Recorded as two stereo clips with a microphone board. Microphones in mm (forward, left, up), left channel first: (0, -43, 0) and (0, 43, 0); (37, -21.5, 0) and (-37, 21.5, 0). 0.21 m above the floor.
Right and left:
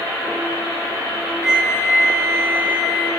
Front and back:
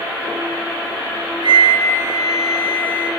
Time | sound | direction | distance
1.4 | a flute | 175° left | 2 m